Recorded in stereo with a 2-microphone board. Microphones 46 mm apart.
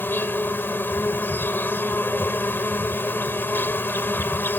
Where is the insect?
50° left (ahead or behind).